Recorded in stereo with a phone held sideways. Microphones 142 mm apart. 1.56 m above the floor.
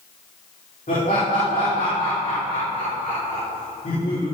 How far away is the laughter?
About 5.5 m.